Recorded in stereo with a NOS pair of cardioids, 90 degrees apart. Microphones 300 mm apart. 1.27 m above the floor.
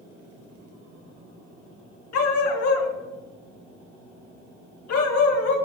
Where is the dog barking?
65° left, 3.5 m.